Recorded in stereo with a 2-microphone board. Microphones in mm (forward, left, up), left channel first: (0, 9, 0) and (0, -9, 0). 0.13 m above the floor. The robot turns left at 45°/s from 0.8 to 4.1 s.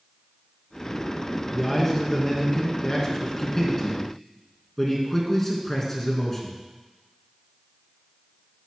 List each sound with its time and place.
1.5 s a man speaking: 10° left (ahead or behind), 1.9 m; by 6.5 s 20° left (ahead or behind), 1.9 m